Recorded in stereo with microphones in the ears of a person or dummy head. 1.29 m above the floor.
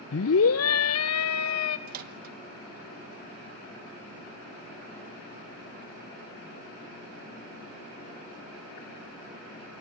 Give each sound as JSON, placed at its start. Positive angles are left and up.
{"t": 0.1, "sound": "a scream", "side_deg": 55, "distance_m": 0.8}
{"t": 1.9, "sound": "a microwave", "side_deg": -40, "distance_m": 1.7}